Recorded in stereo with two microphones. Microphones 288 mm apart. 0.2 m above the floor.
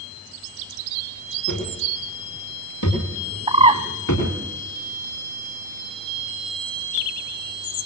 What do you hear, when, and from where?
1.5 s footsteps: 90° left, 9.5 m; by 4.3 s 80° left, 12.5 m
3.5 s a bird: 20° right (ahead or behind), 1.0 m